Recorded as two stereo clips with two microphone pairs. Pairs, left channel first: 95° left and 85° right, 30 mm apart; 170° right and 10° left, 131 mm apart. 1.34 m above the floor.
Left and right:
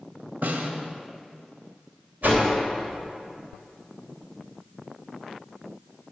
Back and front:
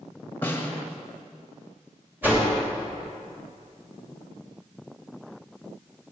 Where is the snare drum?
95° right, 1.2 m.